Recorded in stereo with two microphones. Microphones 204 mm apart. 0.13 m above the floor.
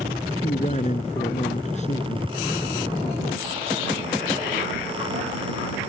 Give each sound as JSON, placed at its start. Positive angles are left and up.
{"t": 0.4, "sound": "a man speaking", "side_deg": 35}